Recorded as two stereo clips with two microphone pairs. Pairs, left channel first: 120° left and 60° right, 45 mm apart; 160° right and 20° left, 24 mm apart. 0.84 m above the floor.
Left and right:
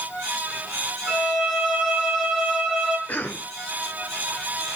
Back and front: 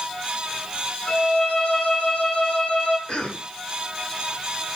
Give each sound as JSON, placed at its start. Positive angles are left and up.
{"t": 1.1, "sound": "a violin", "azimuth_deg": -150, "distance_m": 5.5}
{"t": 3.1, "sound": "a cough", "azimuth_deg": 170, "distance_m": 3.5}